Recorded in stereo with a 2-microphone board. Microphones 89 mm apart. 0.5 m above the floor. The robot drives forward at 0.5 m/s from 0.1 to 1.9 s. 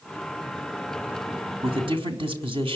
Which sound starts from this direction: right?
A man speaking, at 1.6 s.